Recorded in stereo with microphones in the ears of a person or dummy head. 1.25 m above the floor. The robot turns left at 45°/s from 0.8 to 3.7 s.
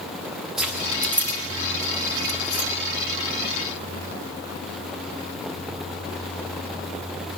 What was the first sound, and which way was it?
Keys jangling, 10° right (ahead or behind).